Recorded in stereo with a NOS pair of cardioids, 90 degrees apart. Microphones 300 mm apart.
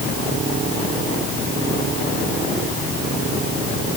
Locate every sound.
Only background noise.